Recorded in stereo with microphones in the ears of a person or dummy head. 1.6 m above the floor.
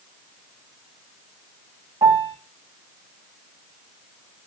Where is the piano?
20° right (ahead or behind), 0.8 m.